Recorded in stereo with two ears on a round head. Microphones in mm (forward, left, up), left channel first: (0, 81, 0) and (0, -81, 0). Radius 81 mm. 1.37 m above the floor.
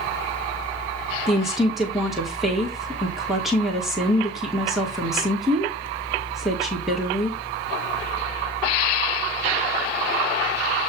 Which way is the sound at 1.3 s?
Centre (ahead or behind).